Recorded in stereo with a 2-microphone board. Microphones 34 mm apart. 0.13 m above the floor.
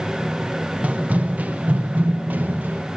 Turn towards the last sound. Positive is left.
turn(degrees=-75)  # may be behind; listen again after turning